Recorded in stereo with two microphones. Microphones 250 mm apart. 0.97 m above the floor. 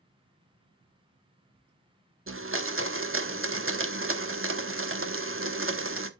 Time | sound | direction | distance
2.3 | a blender | 60° right (ahead or behind) | 0.9 m